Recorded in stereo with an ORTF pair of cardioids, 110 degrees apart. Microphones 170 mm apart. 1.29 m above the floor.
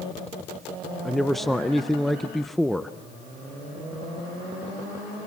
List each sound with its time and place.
1.1 s a man speaking: straight ahead, 0.5 m